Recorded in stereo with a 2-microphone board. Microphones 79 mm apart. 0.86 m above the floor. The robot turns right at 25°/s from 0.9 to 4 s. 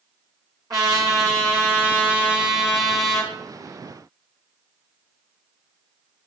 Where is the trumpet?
50° right, 3 m; by 3.3 s 10° left, 3 m.